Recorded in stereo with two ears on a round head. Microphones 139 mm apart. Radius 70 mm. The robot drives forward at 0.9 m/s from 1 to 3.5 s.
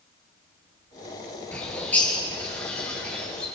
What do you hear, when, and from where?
1.5 s a bird: 10° left (ahead or behind), 6 m; by 3.5 s 5° left (ahead or behind), 7.5 m